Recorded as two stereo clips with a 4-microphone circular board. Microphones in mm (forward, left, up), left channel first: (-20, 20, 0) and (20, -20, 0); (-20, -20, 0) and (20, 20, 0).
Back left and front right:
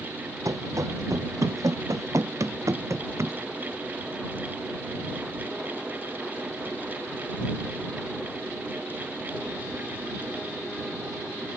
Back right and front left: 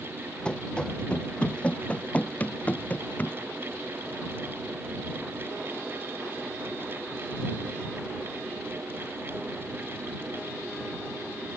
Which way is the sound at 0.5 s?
60° right.